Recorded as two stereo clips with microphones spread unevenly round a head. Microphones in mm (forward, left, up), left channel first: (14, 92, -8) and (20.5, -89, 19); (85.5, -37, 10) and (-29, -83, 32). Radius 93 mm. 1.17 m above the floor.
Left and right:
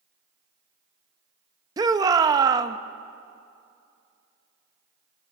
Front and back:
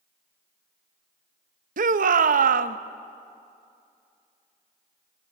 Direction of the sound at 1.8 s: 160° right.